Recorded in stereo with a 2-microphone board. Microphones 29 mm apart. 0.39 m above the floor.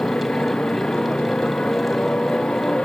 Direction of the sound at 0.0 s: 35° left (ahead or behind).